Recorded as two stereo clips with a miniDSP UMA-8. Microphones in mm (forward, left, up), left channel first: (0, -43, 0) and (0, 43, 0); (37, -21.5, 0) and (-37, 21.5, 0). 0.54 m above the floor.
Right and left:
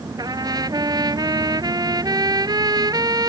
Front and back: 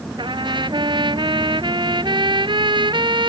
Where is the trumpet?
130° left.